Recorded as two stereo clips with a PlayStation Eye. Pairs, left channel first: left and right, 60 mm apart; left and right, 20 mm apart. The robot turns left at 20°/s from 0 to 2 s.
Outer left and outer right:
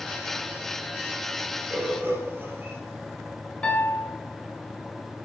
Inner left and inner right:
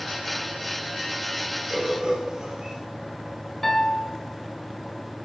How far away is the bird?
About 3 m.